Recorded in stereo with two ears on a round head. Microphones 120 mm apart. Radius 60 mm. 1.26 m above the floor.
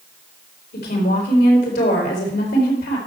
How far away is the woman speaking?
About 4 m.